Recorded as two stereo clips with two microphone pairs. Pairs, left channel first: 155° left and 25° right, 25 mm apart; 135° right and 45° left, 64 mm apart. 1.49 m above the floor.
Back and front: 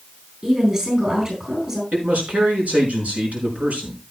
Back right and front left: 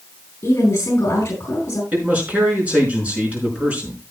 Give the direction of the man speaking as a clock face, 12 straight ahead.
1 o'clock.